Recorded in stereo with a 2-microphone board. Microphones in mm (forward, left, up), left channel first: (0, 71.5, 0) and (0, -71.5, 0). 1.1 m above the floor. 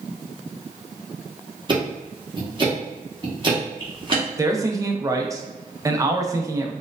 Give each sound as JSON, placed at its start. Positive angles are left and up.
{"t": 1.7, "sound": "ticking", "side_deg": -35, "distance_m": 1.1}
{"t": 4.4, "sound": "a man speaking", "side_deg": -25, "distance_m": 0.6}